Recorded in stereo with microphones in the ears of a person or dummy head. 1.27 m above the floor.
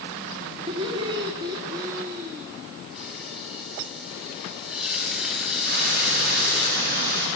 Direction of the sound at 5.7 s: 60° right (ahead or behind).